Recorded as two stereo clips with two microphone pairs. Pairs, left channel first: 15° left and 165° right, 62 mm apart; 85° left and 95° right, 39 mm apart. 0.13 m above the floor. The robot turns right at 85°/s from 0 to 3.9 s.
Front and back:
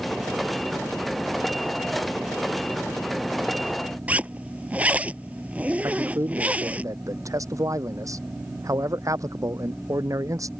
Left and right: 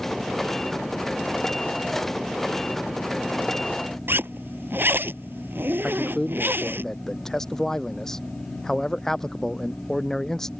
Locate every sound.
4.1 s a zipper: 100° right
5.8 s a man speaking: 165° left